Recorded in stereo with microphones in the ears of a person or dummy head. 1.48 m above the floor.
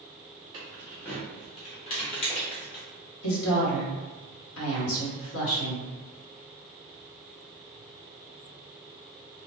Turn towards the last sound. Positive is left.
turn(degrees=75)  # may be behind; listen again after turning